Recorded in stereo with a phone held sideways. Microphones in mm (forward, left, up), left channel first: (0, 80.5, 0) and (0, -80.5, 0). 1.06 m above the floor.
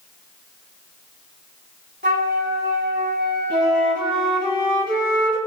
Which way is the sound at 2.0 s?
85° right.